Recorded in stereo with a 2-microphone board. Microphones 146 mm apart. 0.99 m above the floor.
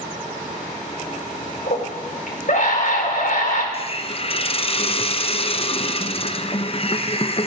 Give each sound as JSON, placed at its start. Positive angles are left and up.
{"t": 1.7, "sound": "a scream", "side_deg": 65, "distance_m": 3.5}
{"t": 3.7, "sound": "a hiss", "side_deg": 40, "distance_m": 0.6}